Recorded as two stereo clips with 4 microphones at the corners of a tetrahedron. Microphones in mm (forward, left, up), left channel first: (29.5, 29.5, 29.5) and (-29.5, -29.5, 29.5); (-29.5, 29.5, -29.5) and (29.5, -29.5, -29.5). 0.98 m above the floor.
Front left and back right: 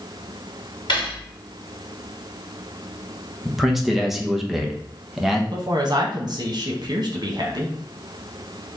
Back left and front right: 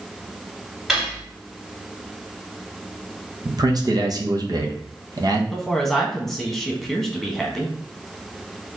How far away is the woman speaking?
About 1.3 m.